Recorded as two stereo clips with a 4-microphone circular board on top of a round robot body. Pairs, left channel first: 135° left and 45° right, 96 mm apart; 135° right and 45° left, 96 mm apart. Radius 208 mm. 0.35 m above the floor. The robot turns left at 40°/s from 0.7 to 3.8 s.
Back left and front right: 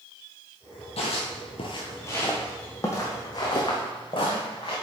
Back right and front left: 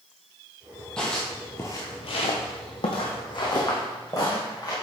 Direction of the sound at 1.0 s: 145° left.